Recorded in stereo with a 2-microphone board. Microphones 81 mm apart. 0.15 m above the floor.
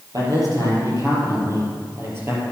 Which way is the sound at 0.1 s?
55° right (ahead or behind).